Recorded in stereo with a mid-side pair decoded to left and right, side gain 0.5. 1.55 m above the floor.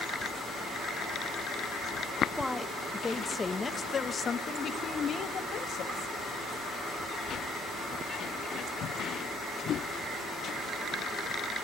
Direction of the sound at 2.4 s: 10° left.